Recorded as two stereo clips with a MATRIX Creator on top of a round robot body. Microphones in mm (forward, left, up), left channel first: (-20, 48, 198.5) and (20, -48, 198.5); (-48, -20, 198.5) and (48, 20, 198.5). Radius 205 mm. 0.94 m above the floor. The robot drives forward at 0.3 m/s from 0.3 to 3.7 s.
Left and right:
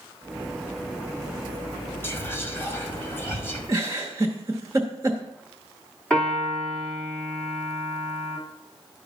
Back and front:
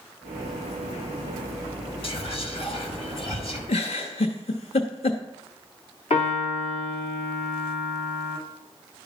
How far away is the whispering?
About 2.0 m.